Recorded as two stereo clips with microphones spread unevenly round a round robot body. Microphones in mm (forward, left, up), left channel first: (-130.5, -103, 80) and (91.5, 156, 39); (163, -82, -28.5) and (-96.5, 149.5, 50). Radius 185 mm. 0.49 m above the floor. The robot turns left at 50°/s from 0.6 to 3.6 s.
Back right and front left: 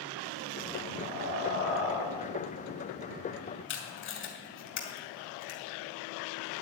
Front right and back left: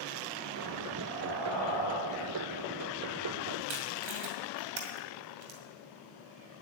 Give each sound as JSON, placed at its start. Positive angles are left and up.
{"t": 1.0, "sound": "breathing", "azimuth_deg": -165, "distance_m": 3.0}
{"t": 3.7, "sound": "tape being pulled", "azimuth_deg": 170, "distance_m": 2.5}